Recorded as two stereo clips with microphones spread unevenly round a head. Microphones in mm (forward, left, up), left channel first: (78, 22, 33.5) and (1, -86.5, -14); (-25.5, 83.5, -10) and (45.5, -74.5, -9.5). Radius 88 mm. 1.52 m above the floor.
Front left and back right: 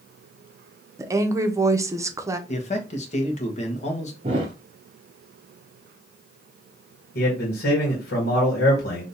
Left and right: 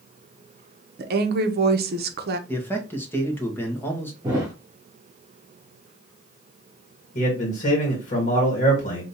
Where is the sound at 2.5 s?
35° left, 1.3 m.